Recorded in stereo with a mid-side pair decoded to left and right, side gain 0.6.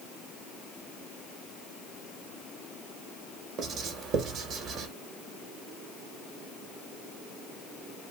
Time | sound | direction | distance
3.6 | writing | 55° right | 1.3 m